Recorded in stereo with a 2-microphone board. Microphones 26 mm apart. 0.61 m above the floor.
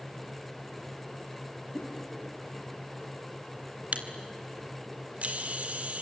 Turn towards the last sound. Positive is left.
turn(degrees=-50)  # may be behind; listen again after turning